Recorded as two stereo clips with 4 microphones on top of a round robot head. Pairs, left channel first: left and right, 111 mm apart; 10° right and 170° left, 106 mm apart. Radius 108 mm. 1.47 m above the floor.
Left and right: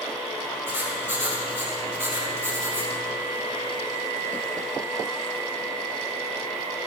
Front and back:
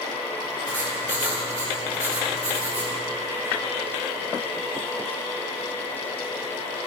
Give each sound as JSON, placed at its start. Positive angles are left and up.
{"t": 0.7, "sound": "writing", "azimuth_deg": -160, "distance_m": 6.0}